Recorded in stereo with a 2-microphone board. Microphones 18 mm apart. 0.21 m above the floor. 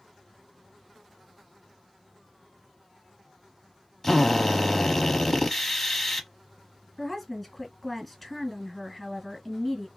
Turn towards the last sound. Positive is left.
turn(degrees=5)  # may be behind; listen again after turning